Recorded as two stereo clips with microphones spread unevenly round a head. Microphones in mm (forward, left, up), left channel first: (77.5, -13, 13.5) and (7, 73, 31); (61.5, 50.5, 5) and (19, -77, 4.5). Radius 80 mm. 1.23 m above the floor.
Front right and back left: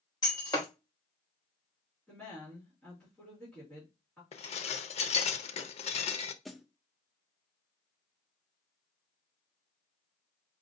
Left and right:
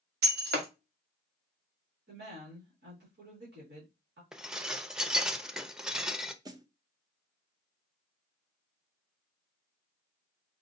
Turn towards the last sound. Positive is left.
turn(degrees=-120)